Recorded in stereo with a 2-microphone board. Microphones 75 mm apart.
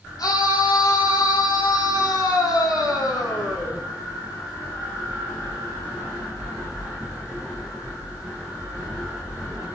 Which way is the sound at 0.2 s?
60° left (ahead or behind).